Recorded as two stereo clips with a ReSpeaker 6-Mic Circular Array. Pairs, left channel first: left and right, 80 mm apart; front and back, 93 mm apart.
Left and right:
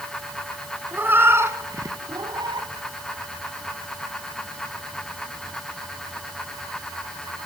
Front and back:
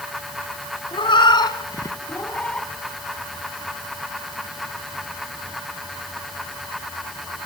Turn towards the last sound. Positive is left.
turn(degrees=-85)